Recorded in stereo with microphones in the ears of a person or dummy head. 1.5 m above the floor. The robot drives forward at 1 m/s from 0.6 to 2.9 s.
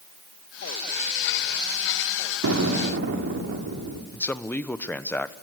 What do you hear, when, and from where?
2.4 s an explosion: 70° right (ahead or behind), 3.5 m; by 4.0 s 60° right (ahead or behind), 3.5 m
4.1 s a man speaking: 10° left (ahead or behind), 1.0 m